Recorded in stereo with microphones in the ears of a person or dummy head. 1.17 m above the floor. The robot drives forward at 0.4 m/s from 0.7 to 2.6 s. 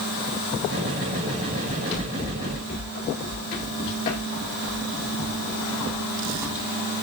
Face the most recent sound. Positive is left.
turn(degrees=-10)  # may be behind; listen again after turning